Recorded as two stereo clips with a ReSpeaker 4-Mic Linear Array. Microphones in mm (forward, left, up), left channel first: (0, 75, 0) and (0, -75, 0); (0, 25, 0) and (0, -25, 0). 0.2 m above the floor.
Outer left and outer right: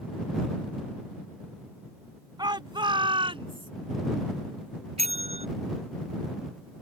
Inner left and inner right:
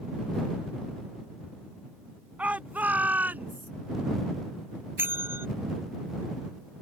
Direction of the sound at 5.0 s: 45° right (ahead or behind).